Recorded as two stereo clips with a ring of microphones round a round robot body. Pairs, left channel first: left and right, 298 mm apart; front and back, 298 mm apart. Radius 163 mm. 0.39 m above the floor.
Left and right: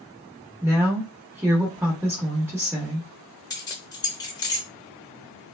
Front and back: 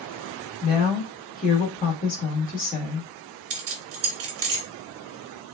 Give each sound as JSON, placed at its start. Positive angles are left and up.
{"t": 0.6, "sound": "a woman speaking", "azimuth_deg": -20, "distance_m": 1.2}
{"t": 3.5, "sound": "keys jangling", "azimuth_deg": 165, "distance_m": 0.7}